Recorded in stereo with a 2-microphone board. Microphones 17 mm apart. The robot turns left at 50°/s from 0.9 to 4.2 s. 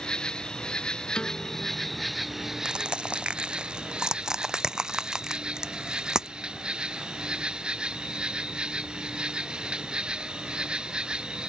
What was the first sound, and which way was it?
An insect, 50° left.